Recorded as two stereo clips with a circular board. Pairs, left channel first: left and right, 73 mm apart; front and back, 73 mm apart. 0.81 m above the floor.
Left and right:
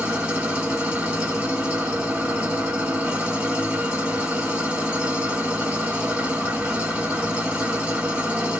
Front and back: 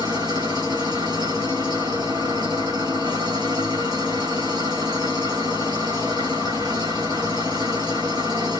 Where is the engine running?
160° right, 2 m.